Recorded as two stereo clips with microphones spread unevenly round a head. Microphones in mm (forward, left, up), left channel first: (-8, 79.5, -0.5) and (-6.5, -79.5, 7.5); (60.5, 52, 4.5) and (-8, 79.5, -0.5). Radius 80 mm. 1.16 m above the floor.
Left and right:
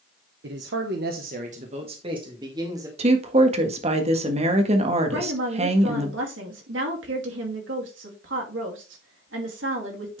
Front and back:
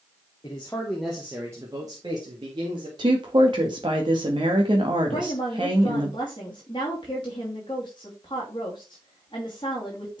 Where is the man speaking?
75° right, 1.0 m; by 2.9 s 160° right, 2.5 m.